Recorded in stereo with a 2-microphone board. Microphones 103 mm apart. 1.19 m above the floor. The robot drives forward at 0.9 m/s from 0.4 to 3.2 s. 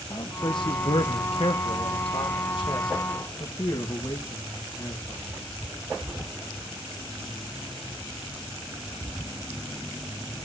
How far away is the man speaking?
About 1.7 m.